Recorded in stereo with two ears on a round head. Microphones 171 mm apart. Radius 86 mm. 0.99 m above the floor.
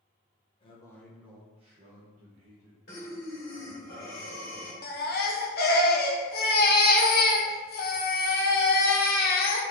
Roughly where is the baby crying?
Left.